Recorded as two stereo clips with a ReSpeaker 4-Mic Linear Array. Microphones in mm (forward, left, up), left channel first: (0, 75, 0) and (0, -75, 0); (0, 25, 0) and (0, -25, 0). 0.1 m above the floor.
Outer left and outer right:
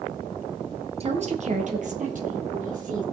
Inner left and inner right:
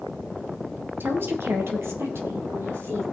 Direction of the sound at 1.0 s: 45° right (ahead or behind).